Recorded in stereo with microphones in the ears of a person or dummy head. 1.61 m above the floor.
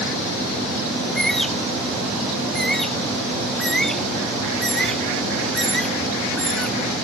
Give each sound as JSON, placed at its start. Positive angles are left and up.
{"t": 1.0, "sound": "a bird", "side_deg": 5}